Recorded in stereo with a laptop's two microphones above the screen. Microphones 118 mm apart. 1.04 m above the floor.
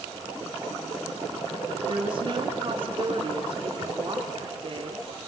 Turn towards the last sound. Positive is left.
turn(degrees=-45)  # may be behind; listen again after turning